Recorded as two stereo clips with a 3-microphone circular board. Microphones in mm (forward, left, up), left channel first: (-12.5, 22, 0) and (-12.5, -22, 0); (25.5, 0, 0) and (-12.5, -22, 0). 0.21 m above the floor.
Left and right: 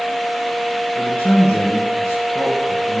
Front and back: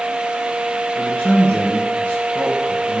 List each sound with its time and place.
0.9 s a man speaking: 85° left, 3.5 m